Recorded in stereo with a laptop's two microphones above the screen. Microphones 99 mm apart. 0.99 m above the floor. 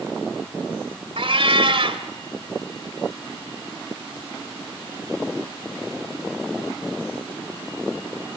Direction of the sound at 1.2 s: 65° right (ahead or behind).